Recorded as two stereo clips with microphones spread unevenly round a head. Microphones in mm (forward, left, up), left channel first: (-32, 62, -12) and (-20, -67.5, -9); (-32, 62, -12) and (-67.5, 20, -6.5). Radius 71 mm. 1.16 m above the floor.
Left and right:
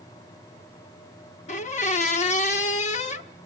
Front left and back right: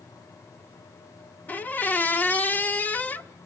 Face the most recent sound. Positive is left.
turn(degrees=100)